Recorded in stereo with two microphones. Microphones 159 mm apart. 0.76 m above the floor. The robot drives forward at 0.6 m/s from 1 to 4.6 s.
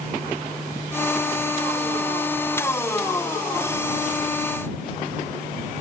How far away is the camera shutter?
I don't hear a camera shutter.